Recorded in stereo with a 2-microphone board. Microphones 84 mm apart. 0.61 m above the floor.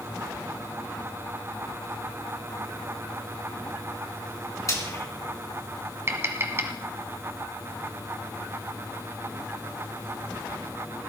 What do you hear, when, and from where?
4.7 s frying: 40° left (ahead or behind), 3.5 m
6.1 s tapping: 30° right (ahead or behind), 1.5 m